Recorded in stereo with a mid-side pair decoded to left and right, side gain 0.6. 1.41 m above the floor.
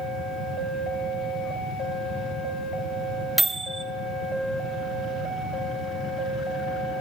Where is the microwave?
10° right, 0.8 m.